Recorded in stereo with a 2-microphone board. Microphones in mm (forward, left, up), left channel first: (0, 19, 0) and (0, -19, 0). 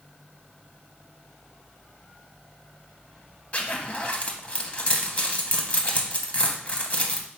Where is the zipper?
40° left (ahead or behind), 0.6 m.